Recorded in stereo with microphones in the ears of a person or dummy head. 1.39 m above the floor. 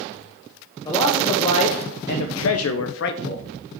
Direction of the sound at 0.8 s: 25° left (ahead or behind).